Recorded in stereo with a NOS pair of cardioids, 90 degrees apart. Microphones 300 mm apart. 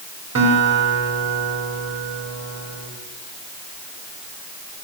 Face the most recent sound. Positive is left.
turn(degrees=-65)